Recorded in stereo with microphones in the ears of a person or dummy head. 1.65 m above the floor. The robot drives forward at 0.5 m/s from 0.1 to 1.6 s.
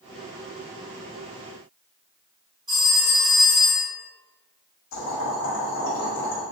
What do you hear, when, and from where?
2.7 s a phone ringing: 20° right (ahead or behind), 1.4 m
4.9 s boiling: 60° left (ahead or behind), 1.3 m